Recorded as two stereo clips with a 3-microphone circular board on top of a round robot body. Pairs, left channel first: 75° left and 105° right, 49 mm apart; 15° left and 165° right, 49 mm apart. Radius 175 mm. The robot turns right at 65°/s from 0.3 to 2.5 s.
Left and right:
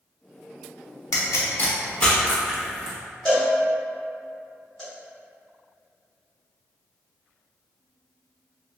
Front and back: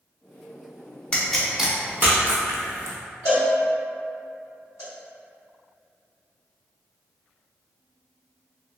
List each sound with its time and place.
1.1 s a pop: 85° left, 0.7 m; by 3.0 s 175° left, 0.7 m
3.2 s a cowbell: 5° right, 1.7 m